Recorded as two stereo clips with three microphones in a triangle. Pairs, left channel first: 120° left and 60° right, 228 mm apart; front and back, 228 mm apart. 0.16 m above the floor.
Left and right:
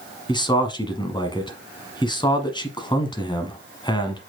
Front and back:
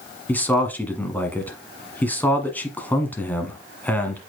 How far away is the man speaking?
About 1.1 m.